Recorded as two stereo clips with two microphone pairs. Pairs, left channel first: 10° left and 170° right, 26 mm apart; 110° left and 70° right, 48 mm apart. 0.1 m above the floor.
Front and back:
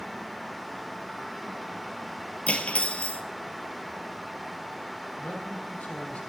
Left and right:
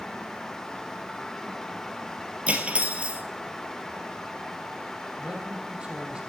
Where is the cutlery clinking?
10° right, 1.4 m.